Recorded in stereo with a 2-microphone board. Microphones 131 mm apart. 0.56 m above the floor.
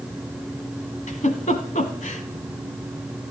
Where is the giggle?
75° left (ahead or behind), 1.3 m.